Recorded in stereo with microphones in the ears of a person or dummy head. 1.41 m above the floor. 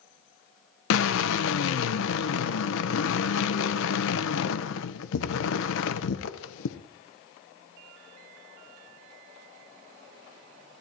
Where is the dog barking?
No dog barking in this recording.